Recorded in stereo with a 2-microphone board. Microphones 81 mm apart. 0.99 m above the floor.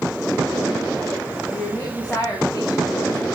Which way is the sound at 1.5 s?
15° left (ahead or behind).